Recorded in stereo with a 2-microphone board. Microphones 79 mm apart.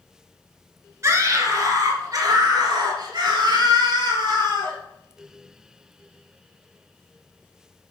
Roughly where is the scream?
Right.